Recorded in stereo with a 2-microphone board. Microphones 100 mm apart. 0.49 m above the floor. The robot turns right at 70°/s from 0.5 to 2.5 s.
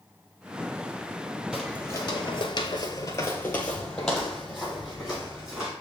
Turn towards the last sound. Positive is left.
turn(degrees=-10)  # may be behind; listen again after turning